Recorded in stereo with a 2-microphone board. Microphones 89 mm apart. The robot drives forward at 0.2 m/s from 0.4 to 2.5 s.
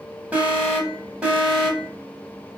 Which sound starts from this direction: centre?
An alarm, at 0.3 s.